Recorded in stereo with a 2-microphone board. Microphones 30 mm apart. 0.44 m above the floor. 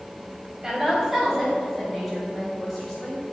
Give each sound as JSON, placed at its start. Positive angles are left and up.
{"t": 0.6, "sound": "a woman speaking", "side_deg": -15, "distance_m": 1.9}